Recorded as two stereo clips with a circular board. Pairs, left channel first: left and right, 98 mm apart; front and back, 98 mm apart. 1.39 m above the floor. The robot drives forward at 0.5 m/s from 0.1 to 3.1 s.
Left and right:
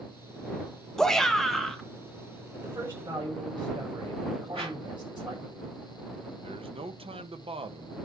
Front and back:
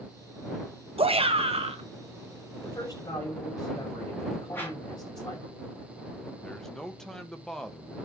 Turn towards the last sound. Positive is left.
turn(degrees=-85)